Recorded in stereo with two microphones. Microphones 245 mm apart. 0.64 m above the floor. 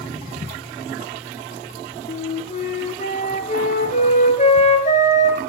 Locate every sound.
2.1 s a flute: 30° left (ahead or behind), 1.6 m